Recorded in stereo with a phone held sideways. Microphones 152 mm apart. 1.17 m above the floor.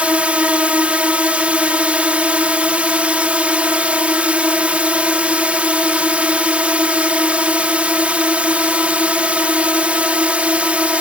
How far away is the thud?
I don't hear a thud.